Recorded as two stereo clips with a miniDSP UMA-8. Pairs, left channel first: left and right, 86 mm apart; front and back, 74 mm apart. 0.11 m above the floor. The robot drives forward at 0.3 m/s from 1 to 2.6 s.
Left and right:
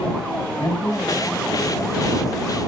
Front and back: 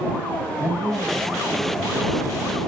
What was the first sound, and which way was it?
A man speaking, 140° left.